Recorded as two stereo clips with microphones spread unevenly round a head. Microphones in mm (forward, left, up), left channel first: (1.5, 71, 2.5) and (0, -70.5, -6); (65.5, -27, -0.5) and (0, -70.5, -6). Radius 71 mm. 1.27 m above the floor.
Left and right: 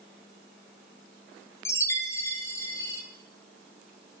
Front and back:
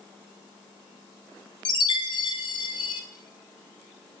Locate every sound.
1.6 s a chime: 15° left, 0.6 m